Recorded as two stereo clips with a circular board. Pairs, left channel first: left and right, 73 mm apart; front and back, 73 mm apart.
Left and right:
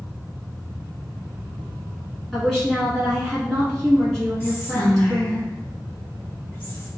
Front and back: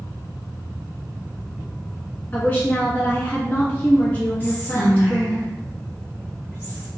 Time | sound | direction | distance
2.3 | a woman speaking | 10° left | 1.3 m
4.4 | whispering | 50° left | 1.9 m